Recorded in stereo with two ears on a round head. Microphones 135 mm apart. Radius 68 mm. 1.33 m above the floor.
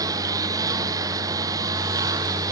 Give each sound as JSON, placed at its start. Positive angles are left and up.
{"t": 0.0, "sound": "a lawn mower", "side_deg": -25}